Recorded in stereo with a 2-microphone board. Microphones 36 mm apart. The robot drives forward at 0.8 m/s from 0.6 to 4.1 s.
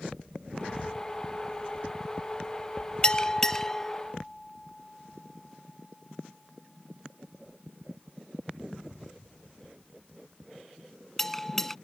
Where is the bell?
25° left (ahead or behind); by 11.8 s 10° left (ahead or behind).